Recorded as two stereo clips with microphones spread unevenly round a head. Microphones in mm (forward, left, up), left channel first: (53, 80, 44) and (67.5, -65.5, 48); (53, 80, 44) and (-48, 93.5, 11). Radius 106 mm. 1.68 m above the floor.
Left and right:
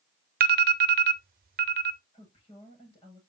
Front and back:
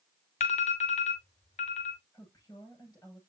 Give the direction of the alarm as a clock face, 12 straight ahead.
2 o'clock.